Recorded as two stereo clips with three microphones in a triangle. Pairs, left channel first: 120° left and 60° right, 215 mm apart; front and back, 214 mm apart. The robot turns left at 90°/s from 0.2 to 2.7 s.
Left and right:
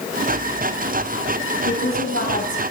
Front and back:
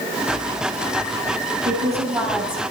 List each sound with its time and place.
1.6 s a woman speaking: 145° left, 5.5 m; by 2.6 s 60° left, 5.5 m